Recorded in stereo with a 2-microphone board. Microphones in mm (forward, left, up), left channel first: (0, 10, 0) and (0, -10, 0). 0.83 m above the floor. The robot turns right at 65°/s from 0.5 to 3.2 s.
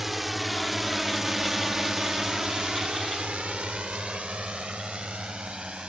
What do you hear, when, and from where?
0.0 s a drone: 15° right (ahead or behind); by 5.9 s 60° right (ahead or behind)